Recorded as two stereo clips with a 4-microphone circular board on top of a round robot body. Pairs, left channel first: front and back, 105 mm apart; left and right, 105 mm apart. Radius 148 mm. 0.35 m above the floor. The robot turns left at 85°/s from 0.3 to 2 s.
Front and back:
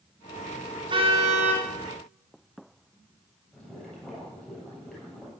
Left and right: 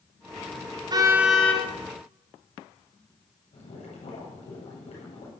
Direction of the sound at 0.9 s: 140° right.